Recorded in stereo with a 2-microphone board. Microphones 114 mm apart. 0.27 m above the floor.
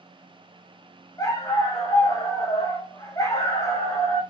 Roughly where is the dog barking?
Left.